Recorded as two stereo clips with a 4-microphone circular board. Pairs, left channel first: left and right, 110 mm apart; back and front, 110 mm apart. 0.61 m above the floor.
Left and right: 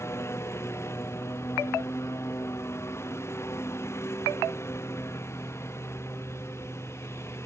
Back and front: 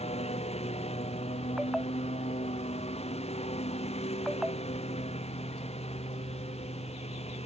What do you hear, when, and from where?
0.0 s a lawn mower: 155° left